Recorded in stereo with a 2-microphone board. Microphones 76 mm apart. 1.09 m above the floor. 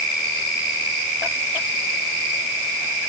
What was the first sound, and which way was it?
Only background noise.